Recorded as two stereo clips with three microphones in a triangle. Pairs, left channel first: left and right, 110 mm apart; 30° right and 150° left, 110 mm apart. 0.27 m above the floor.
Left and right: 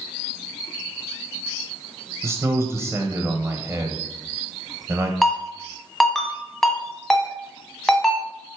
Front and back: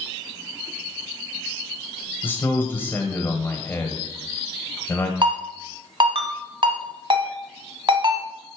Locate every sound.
2.2 s a man speaking: 70° right, 1.0 m
5.2 s a ringtone: 175° left, 1.3 m